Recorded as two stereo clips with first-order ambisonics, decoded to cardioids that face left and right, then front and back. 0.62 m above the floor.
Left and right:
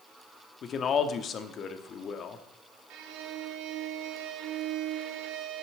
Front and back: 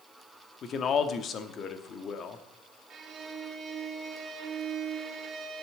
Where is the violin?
115° right, 1.3 m.